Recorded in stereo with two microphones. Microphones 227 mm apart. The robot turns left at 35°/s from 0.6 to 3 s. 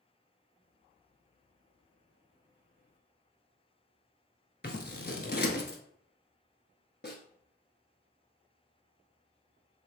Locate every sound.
4.6 s scissors: 45° left (ahead or behind), 0.7 m
7.0 s a snare drum: 45° left (ahead or behind), 0.8 m